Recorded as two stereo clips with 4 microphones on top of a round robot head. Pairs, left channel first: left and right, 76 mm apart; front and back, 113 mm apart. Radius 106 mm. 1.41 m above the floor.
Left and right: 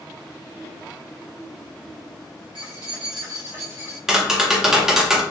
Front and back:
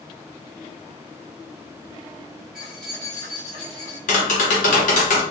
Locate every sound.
2.5 s keys jangling: 90° right, 0.9 m; by 4.0 s 35° right, 1.1 m
4.1 s tapping: 10° right, 0.9 m